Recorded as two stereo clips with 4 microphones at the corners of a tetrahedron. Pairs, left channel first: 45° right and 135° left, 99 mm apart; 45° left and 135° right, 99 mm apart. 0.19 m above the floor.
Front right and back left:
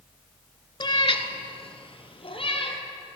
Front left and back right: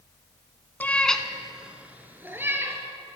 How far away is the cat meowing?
About 0.7 m.